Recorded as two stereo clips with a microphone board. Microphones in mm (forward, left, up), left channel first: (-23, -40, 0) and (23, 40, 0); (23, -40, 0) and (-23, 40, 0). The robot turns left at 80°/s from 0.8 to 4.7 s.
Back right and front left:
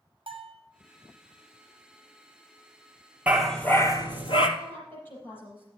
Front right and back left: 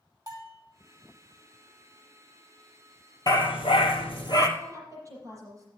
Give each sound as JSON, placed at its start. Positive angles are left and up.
{"t": 0.3, "sound": "a bell", "azimuth_deg": 70, "distance_m": 3.0}
{"t": 3.3, "sound": "a dog barking", "azimuth_deg": -15, "distance_m": 1.8}
{"t": 4.6, "sound": "a woman speaking", "azimuth_deg": 180, "distance_m": 6.5}